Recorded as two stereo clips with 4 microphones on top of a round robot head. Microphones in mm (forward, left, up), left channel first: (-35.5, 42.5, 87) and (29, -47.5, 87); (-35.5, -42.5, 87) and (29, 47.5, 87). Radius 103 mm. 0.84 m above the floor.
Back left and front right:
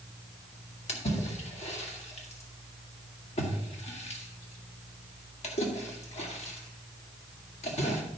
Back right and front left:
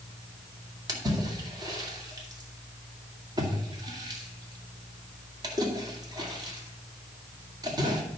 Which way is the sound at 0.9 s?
110° left.